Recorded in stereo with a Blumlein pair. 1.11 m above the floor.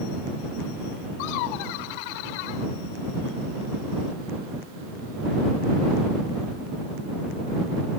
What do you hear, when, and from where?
1.2 s laughter: 45° left